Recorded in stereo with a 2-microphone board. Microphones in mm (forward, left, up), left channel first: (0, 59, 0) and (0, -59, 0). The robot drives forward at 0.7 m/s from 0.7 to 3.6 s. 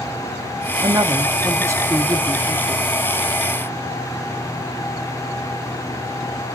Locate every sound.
0.8 s a woman speaking: 35° right (ahead or behind), 1.0 m; by 2.9 s 15° right (ahead or behind), 1.9 m